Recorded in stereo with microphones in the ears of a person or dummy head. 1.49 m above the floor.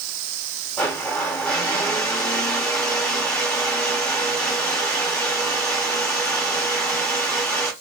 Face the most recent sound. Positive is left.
turn(degrees=10)  # may be behind; listen again after turning